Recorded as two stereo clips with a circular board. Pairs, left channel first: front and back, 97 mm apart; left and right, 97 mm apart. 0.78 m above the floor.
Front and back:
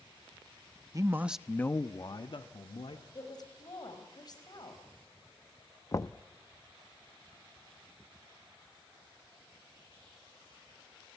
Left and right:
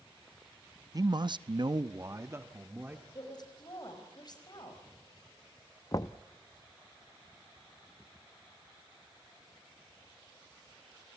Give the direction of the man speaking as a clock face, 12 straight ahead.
4 o'clock.